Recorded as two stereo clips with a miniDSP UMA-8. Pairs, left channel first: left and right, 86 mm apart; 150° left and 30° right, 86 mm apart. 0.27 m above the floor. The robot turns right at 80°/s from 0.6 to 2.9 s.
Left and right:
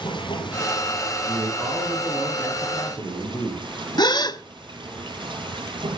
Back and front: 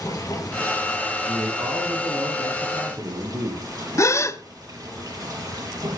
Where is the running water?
105° left, 5 m; by 6.0 s 70° right, 5 m.